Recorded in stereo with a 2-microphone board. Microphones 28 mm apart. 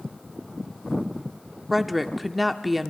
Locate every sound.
1.7 s a woman speaking: centre (ahead or behind), 0.7 m